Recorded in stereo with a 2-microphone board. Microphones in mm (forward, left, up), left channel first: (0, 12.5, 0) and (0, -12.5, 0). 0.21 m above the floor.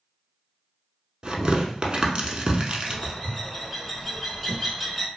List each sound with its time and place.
1.2 s tearing paper: 40° right (ahead or behind), 0.6 m
2.9 s a bird: centre (ahead or behind), 1.0 m